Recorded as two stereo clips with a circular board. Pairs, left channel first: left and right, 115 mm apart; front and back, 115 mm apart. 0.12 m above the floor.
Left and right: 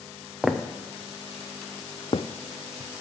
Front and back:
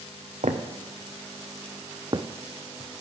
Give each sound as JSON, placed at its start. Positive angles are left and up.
{"t": 0.4, "sound": "footsteps", "azimuth_deg": 180, "distance_m": 1.1}